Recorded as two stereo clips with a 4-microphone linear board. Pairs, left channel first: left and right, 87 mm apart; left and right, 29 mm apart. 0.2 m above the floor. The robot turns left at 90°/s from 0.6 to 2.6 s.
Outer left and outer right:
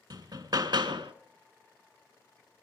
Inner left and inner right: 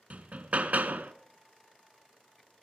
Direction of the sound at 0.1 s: 60° right.